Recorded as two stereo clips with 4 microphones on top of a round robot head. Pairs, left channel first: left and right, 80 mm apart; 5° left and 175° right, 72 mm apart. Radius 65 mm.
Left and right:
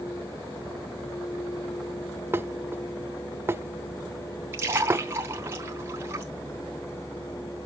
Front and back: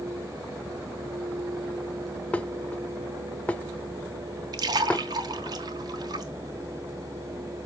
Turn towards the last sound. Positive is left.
turn(degrees=-150)